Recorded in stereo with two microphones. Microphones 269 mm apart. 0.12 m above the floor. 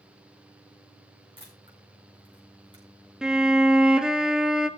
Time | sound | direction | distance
1.4 | a camera shutter | 15° right (ahead or behind) | 7.5 m
3.2 | a violin | centre (ahead or behind) | 1.0 m